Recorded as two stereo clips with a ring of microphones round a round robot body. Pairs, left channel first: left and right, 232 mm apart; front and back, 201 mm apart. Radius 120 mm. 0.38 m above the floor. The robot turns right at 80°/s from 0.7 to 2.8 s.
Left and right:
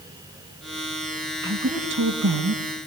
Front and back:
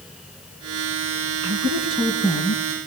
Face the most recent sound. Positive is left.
turn(degrees=-60)